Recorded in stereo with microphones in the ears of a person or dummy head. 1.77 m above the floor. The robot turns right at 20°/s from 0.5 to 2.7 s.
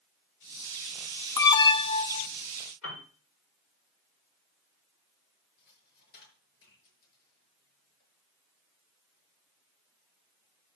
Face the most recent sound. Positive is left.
turn(degrees=55)  # may be behind; listen again after turning